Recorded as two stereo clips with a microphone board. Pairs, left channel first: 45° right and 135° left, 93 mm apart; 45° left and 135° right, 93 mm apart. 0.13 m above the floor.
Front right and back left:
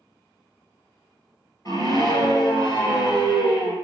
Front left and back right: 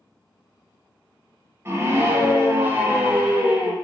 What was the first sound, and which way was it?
A scream, 75° right.